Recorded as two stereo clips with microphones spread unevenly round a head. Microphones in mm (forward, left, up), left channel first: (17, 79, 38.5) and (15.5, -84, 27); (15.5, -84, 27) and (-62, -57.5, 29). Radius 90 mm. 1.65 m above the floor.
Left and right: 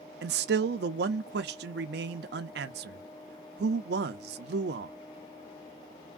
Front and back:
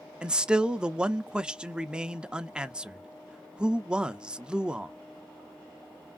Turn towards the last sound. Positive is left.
turn(degrees=-120)